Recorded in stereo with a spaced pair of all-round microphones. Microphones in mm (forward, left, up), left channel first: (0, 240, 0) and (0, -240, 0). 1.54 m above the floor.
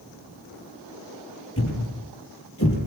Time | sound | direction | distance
1.6 | a thud | 30° left (ahead or behind) | 7.5 m